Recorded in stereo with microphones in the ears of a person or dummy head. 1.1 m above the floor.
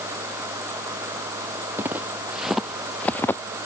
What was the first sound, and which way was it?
Footsteps, 15° right (ahead or behind).